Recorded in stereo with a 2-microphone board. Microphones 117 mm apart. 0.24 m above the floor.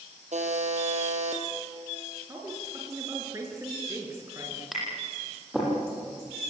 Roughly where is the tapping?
Centre.